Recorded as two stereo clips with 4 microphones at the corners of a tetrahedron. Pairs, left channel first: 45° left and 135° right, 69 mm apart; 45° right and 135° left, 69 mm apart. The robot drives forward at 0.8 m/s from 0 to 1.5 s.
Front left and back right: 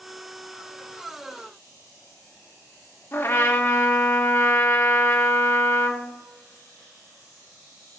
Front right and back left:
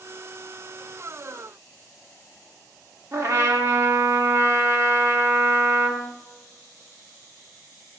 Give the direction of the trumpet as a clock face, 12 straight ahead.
9 o'clock.